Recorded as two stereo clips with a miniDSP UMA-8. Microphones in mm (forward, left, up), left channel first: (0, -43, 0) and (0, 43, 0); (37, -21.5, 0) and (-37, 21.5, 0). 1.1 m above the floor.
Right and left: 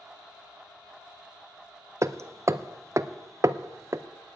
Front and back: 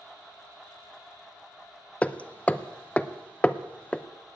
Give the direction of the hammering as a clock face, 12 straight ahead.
11 o'clock.